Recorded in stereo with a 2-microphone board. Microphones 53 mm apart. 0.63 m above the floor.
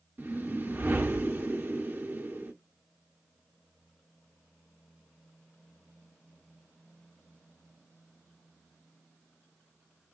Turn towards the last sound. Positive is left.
turn(degrees=-40)  # may be behind; listen again after turning